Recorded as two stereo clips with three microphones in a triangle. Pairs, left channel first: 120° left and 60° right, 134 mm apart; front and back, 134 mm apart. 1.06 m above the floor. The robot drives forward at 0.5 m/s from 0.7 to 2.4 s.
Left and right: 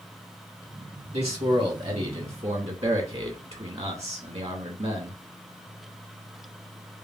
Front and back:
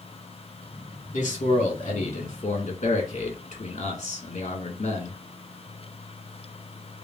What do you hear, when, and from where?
1.1 s a man speaking: 20° right, 2 m; by 5.2 s 30° right, 1.5 m